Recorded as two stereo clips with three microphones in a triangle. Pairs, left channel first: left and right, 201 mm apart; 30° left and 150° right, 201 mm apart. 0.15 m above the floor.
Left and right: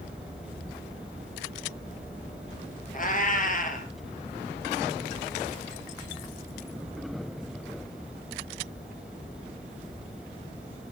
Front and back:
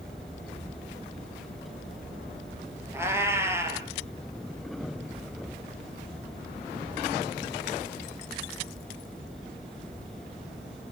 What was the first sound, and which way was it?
A cat meowing, 135° left.